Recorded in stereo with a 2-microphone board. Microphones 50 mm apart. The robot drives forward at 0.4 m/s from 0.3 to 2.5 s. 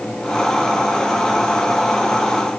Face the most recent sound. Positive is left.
No sound to turn to.